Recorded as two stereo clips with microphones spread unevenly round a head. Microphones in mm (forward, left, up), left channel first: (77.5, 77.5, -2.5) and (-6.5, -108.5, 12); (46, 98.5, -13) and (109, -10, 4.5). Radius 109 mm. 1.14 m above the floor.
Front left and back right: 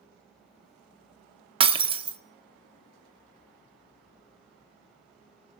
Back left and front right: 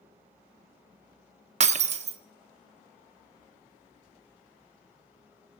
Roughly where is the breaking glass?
Ahead right.